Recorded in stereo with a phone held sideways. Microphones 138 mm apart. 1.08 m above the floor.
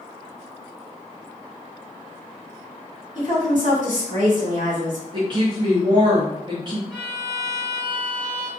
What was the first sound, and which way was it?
A woman speaking, 65° right (ahead or behind).